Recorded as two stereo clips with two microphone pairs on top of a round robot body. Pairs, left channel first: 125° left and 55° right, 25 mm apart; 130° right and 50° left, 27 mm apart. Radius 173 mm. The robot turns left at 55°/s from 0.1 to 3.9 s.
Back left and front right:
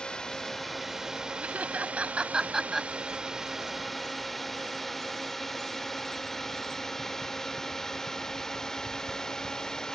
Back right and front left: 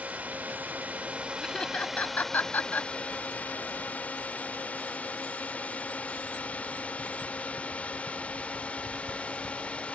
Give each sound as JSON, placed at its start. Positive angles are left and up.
{"t": 0.0, "sound": "a drone", "azimuth_deg": 75}
{"t": 1.4, "sound": "laughter", "azimuth_deg": -55}